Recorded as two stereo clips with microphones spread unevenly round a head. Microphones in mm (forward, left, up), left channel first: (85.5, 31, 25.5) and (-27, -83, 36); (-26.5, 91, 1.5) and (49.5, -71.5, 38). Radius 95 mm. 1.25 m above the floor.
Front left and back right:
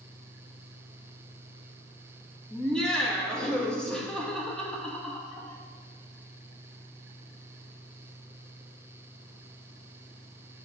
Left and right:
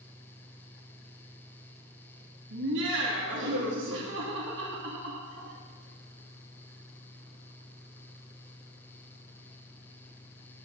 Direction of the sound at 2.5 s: 40° right.